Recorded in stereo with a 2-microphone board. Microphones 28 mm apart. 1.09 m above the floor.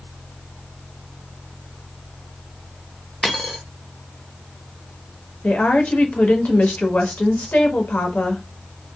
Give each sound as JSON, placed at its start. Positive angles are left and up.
{"t": 3.2, "sound": "a dropped coin", "side_deg": 20, "distance_m": 0.7}
{"t": 5.4, "sound": "a woman speaking", "side_deg": 65, "distance_m": 0.8}